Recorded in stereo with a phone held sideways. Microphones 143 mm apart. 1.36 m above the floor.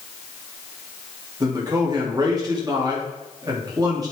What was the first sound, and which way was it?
A man speaking, 30° right (ahead or behind).